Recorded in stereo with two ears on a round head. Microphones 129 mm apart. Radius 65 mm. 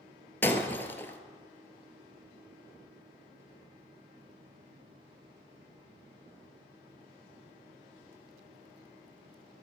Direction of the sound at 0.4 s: 15° left (ahead or behind).